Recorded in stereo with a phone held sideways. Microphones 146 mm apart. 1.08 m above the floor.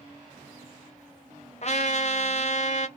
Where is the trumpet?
50° left (ahead or behind), 0.5 m.